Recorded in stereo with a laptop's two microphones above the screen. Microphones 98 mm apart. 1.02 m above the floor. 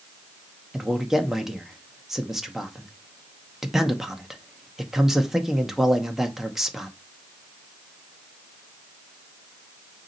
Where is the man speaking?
Centre (ahead or behind), 1.9 m.